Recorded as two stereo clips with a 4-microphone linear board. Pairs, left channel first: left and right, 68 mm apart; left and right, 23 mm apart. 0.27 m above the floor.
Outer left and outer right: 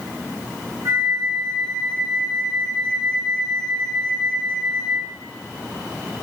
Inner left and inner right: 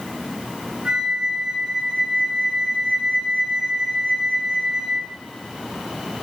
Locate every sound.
0.8 s a flute: 45° right (ahead or behind), 0.6 m